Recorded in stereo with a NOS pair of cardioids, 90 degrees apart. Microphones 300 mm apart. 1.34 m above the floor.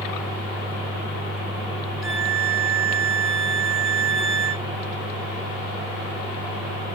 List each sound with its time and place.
2.0 s a violin: straight ahead, 1.5 m